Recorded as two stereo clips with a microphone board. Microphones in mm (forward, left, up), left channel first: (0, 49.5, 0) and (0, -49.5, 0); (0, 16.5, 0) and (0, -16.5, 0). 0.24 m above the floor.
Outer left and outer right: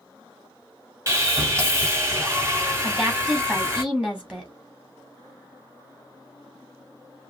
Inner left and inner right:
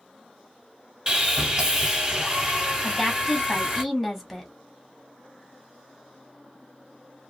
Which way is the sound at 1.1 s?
25° right (ahead or behind).